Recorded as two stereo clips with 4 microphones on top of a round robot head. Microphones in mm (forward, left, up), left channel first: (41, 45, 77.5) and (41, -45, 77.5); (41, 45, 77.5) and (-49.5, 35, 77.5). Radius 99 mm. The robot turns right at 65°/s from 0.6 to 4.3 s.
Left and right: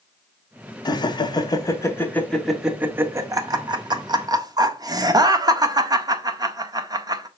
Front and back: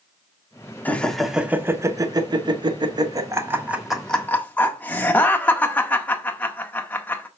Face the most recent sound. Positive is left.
turn(degrees=-65)